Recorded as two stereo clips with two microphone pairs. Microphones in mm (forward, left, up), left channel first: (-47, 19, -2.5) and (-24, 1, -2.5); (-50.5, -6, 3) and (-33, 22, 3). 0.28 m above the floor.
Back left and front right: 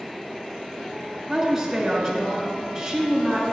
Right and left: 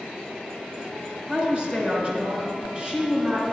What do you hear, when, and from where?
1.3 s a woman speaking: 30° left, 1.7 m